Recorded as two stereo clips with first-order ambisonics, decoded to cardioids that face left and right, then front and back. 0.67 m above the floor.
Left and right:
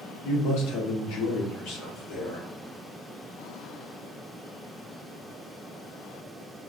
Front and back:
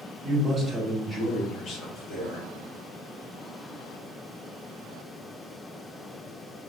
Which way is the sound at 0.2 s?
120° left.